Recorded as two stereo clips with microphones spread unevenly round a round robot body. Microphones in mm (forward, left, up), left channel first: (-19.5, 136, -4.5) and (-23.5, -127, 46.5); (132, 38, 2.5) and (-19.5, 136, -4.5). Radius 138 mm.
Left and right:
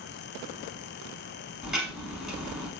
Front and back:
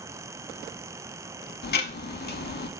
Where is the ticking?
10° right, 0.7 m.